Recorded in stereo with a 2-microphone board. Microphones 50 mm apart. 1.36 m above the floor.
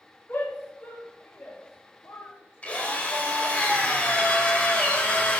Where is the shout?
50° left (ahead or behind), 3 m; by 3.6 s 65° left (ahead or behind), 1.2 m.